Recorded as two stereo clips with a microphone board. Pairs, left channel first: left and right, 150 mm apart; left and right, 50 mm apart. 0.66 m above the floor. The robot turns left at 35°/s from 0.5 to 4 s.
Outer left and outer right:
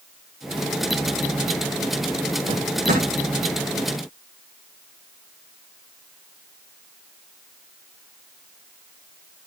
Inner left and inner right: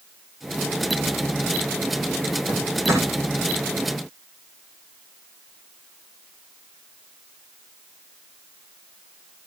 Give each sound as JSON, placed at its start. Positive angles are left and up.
{"t": 2.5, "sound": "a drawer", "side_deg": -60, "distance_m": 8.0}